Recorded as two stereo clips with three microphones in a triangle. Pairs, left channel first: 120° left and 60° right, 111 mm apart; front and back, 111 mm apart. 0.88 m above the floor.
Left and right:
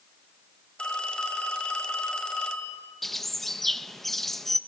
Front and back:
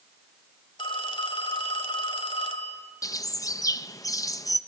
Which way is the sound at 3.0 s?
35° left.